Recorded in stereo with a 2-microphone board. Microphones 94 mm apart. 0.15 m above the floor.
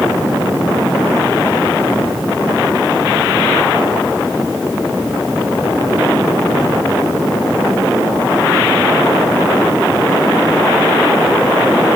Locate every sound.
Only background noise.